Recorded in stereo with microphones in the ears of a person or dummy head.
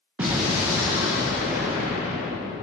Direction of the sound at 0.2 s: 10° right (ahead or behind).